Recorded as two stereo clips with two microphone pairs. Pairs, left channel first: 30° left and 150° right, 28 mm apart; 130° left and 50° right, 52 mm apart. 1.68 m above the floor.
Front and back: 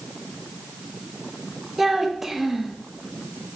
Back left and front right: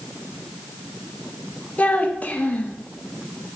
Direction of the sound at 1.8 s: 145° left.